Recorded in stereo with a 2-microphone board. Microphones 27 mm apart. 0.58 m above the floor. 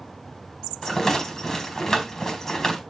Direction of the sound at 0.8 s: 20° left (ahead or behind).